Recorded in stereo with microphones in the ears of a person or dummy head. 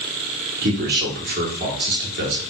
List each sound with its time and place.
0.6 s a man speaking: 50° right (ahead or behind), 0.8 m